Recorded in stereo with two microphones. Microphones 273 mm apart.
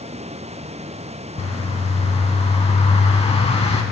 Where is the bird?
25° left (ahead or behind), 0.5 m.